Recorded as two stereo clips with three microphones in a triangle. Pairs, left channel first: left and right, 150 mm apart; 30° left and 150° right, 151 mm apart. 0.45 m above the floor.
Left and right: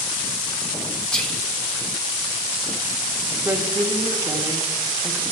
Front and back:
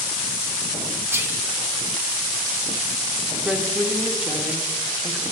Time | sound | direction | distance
1.1 | whispering | 165° left | 1.0 m
3.5 | a woman speaking | 80° right | 0.9 m